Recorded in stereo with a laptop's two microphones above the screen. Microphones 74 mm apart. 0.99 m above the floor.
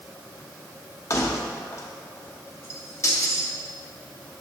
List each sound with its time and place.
1.1 s keys jangling: 40° left (ahead or behind), 0.9 m